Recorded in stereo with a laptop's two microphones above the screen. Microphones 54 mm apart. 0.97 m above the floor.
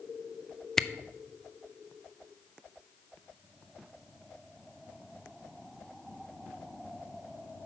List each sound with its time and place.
0.8 s a camera shutter: 10° left (ahead or behind), 0.5 m